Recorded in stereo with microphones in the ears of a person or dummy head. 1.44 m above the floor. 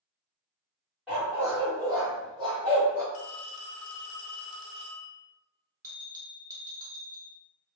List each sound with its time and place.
1.1 s a dog barking: 5° right (ahead or behind), 1.4 m; by 3.0 s 40° right (ahead or behind), 2.5 m
3.1 s a phone ringing: 70° left (ahead or behind), 1.0 m
5.8 s a bell: 15° right (ahead or behind), 1.0 m